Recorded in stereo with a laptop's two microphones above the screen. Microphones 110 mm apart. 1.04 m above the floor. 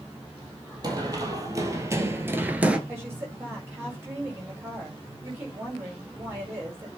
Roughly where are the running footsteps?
Right.